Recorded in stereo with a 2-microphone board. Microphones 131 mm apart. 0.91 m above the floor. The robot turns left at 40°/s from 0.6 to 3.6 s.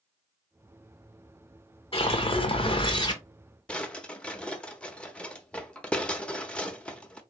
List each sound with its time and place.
1.9 s a whoosh: 95° left, 1.0 m; by 3.2 s 45° left, 1.0 m
3.7 s a drawer: 10° left (ahead or behind), 0.7 m